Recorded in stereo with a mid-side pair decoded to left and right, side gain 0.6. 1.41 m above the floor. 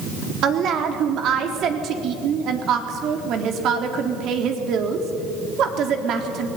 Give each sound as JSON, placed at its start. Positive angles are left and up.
{"t": 0.4, "sound": "a woman speaking", "azimuth_deg": -55, "distance_m": 3.5}